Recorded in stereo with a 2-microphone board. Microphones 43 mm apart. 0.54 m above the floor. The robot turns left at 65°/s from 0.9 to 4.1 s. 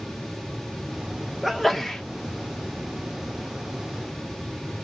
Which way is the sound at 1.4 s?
5° right (ahead or behind).